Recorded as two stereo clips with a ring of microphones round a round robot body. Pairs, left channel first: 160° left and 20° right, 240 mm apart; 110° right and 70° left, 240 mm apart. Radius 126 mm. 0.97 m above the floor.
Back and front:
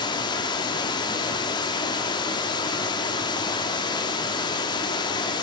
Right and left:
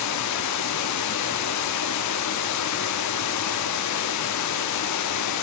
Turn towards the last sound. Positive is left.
turn(degrees=-130)